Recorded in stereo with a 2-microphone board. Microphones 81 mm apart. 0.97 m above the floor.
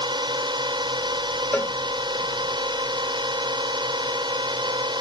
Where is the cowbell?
25° left (ahead or behind).